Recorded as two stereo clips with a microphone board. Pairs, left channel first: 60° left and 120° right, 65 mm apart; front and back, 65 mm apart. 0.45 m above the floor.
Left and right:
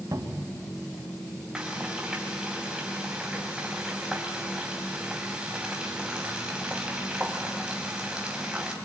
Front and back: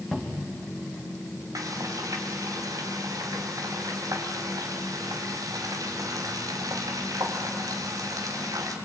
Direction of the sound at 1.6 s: 165° left.